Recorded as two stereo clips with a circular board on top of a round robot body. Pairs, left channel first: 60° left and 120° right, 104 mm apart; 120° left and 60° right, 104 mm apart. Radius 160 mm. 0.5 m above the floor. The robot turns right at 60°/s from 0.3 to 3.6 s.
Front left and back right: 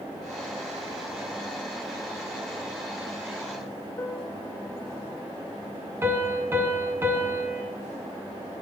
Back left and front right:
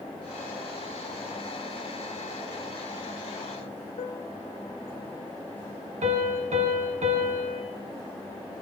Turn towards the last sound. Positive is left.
turn(degrees=-50)